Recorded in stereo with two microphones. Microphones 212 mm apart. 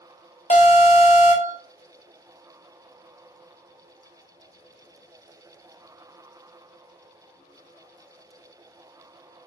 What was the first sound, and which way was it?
An alarm, 30° left (ahead or behind).